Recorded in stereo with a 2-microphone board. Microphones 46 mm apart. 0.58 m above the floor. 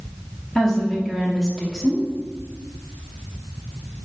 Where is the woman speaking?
10° left (ahead or behind), 0.7 m.